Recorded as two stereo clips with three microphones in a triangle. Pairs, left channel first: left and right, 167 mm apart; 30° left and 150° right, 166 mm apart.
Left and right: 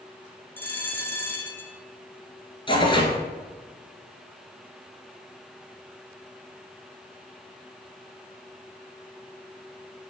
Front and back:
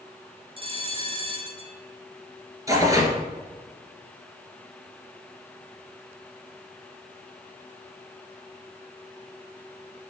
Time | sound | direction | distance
0.6 | a bell | 165° left | 1.2 m
2.7 | tearing paper | 145° left | 1.9 m